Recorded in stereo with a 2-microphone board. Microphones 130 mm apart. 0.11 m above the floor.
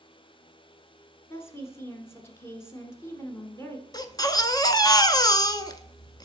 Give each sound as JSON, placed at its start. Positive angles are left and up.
{"t": 1.3, "sound": "a woman speaking", "side_deg": 20, "distance_m": 1.2}
{"t": 3.9, "sound": "a baby crying", "side_deg": 30, "distance_m": 0.5}